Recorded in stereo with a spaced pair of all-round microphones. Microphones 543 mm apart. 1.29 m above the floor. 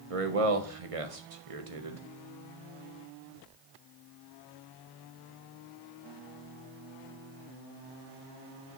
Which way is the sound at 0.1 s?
65° right (ahead or behind).